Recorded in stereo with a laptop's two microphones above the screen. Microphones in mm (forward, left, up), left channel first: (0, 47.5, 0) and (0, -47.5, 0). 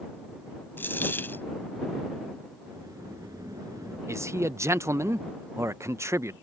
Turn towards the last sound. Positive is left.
turn(degrees=-30)  # may be behind; listen again after turning